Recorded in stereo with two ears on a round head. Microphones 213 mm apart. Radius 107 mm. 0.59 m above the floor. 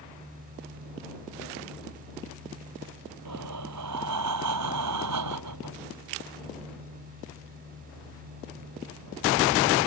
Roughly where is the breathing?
Right.